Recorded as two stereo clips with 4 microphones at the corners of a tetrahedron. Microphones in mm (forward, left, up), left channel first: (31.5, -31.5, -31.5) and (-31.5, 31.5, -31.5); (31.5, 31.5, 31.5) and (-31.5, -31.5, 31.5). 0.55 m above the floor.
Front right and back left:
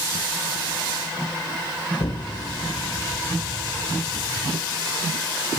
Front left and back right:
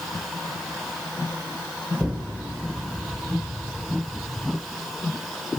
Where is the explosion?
65° right, 4 m.